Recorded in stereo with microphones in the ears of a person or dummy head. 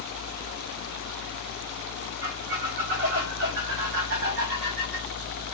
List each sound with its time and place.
2.2 s a squeak: 55° right (ahead or behind), 1.1 m